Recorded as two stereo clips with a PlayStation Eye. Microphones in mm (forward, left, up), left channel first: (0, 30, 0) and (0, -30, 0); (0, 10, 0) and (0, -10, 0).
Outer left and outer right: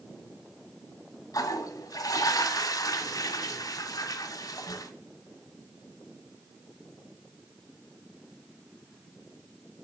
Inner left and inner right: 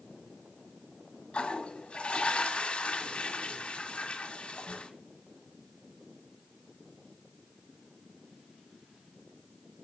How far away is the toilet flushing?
About 1.7 m.